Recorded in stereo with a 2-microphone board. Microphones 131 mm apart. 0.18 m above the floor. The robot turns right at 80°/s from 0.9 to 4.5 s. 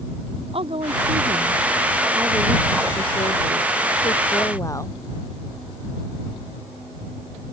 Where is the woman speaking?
130° right; by 5.0 s 155° left.